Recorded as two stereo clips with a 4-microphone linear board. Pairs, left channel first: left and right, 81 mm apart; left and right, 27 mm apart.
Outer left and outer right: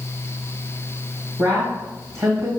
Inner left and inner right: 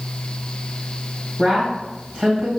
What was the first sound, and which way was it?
A woman speaking, 45° right (ahead or behind).